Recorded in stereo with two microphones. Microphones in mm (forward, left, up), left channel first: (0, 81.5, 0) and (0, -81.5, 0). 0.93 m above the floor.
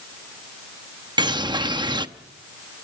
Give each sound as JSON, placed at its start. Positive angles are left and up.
{"t": 1.2, "sound": "a bird", "side_deg": -25, "distance_m": 0.9}